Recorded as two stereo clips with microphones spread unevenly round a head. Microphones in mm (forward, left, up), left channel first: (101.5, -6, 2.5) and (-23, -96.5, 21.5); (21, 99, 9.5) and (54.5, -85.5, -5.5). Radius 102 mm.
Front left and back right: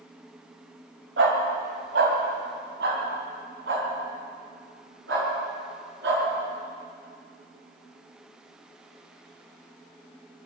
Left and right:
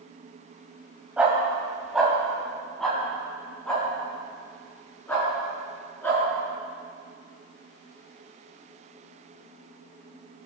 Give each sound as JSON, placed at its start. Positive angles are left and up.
{"t": 1.2, "sound": "a dog barking", "azimuth_deg": -165, "distance_m": 2.5}